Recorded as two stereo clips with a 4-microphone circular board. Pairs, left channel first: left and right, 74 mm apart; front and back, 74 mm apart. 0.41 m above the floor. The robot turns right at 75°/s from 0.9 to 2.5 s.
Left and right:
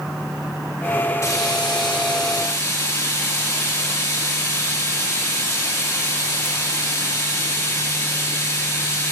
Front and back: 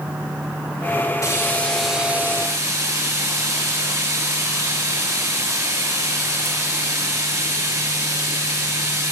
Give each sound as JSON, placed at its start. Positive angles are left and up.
{"t": 1.2, "sound": "frying", "azimuth_deg": 40, "distance_m": 5.0}